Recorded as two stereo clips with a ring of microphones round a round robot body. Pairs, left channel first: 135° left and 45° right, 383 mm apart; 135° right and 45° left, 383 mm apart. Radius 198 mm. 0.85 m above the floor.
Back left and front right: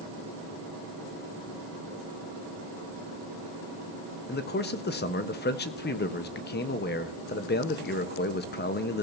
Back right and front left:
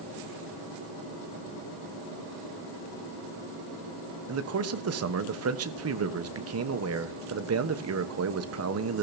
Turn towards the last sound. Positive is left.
turn(degrees=80)